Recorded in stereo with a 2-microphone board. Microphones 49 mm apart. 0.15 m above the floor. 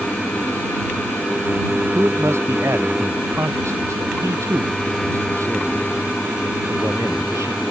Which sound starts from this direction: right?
A man speaking, at 1.9 s.